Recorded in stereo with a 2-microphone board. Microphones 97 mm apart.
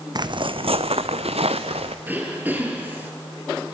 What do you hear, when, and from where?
0.1 s footsteps: 45° right (ahead or behind), 0.8 m; by 1.9 s 80° right, 1.7 m
2.0 s throat clearing: 20° right (ahead or behind), 3.5 m